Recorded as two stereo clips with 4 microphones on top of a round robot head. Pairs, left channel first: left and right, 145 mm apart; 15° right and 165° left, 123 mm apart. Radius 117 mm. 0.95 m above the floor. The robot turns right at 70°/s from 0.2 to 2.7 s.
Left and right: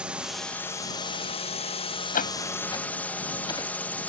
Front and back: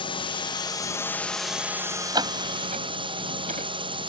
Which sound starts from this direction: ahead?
A drone, at 0.0 s.